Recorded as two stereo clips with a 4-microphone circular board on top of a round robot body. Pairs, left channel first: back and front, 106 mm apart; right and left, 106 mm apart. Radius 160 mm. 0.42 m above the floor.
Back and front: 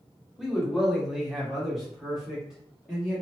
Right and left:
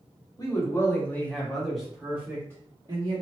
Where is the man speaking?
85° right, 1.6 m; by 3.2 s 85° left, 1.7 m.